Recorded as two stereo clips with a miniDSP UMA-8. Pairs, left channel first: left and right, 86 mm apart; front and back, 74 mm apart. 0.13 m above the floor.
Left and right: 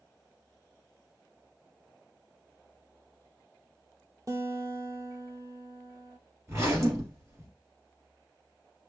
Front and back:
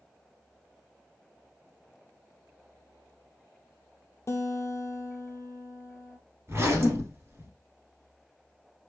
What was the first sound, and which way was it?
A guitar, 45° right.